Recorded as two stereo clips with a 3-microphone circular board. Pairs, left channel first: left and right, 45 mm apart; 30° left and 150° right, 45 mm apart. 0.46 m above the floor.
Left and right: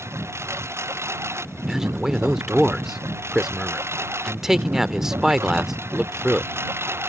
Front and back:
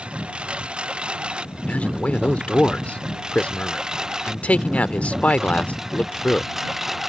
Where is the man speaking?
20° right.